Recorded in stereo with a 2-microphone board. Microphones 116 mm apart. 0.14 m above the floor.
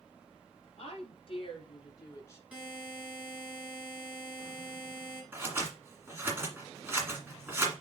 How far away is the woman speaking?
About 3.5 m.